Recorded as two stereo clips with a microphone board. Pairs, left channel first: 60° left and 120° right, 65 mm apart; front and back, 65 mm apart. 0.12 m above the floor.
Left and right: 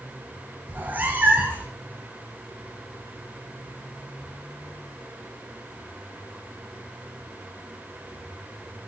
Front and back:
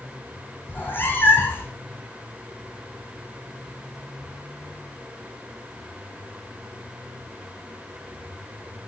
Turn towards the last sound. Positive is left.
turn(degrees=-60)